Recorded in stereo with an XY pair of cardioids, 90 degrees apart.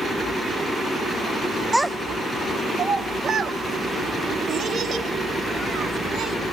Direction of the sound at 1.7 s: 5° right.